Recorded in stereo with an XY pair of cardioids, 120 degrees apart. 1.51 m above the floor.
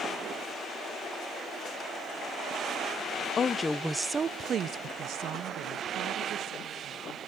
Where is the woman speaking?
40° left, 0.6 m; by 7.2 s 75° right, 2.5 m.